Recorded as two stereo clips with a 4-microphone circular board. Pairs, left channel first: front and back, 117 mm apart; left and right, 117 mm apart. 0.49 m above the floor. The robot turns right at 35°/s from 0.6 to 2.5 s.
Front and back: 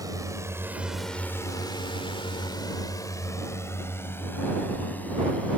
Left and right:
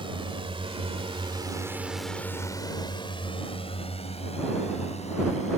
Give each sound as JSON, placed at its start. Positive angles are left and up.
{"t": 0.0, "sound": "a drone", "azimuth_deg": -125}